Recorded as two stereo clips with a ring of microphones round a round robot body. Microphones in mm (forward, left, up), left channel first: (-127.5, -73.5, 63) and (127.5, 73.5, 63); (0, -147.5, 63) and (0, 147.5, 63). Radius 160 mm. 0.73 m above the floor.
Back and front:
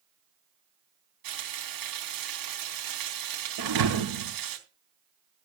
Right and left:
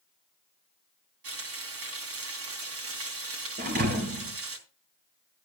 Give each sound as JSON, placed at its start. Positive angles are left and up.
{"t": 1.2, "sound": "frying", "azimuth_deg": 45, "distance_m": 3.5}
{"t": 3.6, "sound": "a thud", "azimuth_deg": 25, "distance_m": 2.5}